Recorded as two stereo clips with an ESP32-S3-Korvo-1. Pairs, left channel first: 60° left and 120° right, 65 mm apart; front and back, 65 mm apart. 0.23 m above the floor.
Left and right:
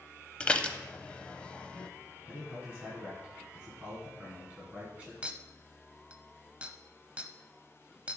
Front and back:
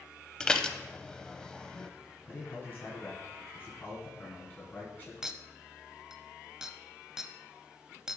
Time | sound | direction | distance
0.4 | dishes clattering | 50° left | 0.6 m
2.2 | a man speaking | 55° right | 2 m
5.2 | a clink | 120° right | 0.5 m